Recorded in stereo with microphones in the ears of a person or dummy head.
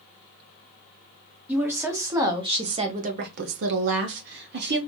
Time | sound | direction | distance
1.5 | a woman speaking | 10° right (ahead or behind) | 1.2 m